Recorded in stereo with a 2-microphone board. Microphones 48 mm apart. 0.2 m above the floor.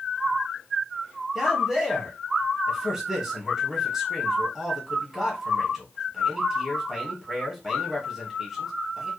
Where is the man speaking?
10° right (ahead or behind), 1.1 m.